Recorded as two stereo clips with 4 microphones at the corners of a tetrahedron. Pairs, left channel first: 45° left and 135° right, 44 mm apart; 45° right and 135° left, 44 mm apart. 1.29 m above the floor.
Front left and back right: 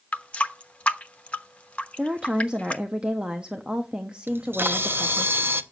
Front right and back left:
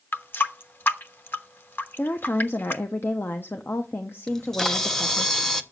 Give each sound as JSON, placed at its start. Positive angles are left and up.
{"t": 0.1, "sound": "a running tap", "azimuth_deg": -15, "distance_m": 0.9}
{"t": 2.0, "sound": "a woman speaking", "azimuth_deg": -70, "distance_m": 0.9}
{"t": 4.3, "sound": "a camera shutter", "azimuth_deg": -125, "distance_m": 0.8}